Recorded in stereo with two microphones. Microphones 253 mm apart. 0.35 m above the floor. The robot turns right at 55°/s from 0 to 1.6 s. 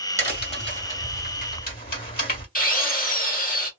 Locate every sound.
0.2 s a crack: 15° right (ahead or behind), 2.0 m; by 2.5 s 35° left (ahead or behind), 2.0 m
2.5 s a drill: 35° left (ahead or behind), 1.6 m